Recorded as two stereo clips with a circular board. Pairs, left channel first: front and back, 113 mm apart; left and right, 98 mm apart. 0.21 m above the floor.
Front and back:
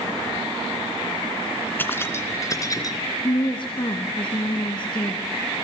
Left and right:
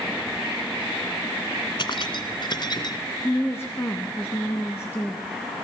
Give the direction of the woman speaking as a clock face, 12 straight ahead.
11 o'clock.